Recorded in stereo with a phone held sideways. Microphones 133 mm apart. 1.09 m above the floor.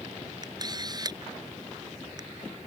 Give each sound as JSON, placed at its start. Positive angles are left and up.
{"t": 0.4, "sound": "a camera shutter", "side_deg": -30}